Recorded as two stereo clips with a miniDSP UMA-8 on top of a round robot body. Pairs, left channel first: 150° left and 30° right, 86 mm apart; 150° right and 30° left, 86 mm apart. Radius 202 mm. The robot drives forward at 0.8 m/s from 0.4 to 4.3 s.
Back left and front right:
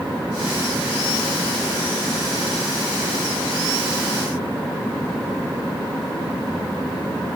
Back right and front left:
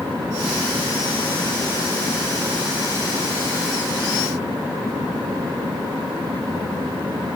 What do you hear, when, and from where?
Only background noise.